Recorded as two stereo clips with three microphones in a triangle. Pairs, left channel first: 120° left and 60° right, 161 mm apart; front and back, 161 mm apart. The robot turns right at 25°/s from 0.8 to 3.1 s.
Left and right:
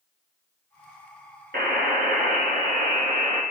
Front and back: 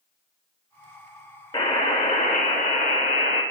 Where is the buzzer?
65° right, 1.2 m; by 3.4 s 25° right, 1.2 m.